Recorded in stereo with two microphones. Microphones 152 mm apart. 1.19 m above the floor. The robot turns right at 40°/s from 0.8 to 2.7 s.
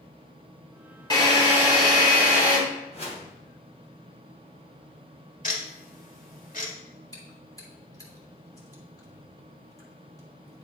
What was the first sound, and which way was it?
A drill, 25° left.